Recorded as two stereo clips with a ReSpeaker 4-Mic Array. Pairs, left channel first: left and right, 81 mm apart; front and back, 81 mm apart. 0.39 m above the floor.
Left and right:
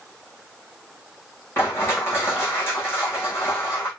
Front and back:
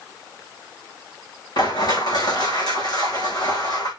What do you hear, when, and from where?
1.6 s crushing: 30° left, 4 m